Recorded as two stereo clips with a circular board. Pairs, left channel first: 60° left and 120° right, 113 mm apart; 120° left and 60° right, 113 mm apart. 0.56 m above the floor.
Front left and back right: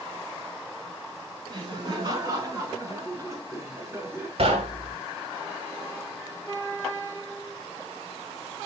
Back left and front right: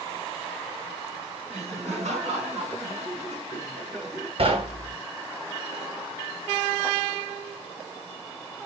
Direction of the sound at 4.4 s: 90° right.